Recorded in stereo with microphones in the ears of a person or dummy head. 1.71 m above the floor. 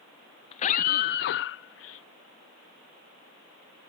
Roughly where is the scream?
Left.